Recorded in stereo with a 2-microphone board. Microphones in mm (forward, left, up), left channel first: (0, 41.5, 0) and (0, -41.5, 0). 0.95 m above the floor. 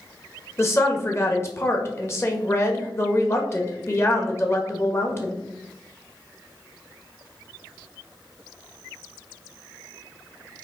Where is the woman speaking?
30° left (ahead or behind), 1.6 m.